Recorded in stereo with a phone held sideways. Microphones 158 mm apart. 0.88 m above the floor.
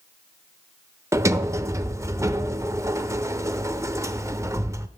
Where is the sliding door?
20° right (ahead or behind), 0.5 m.